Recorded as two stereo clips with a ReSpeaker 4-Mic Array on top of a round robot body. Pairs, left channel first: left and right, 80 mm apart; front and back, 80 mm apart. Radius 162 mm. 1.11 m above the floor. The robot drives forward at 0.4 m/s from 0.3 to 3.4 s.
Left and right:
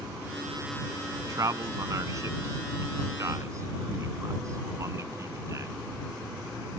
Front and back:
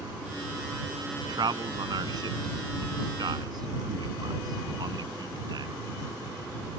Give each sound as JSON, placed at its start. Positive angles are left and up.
{"t": 1.1, "sound": "a man speaking", "azimuth_deg": -140}